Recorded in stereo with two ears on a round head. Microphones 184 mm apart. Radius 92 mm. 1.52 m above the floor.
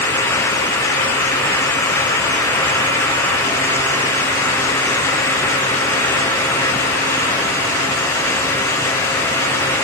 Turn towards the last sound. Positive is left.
No sound to turn to.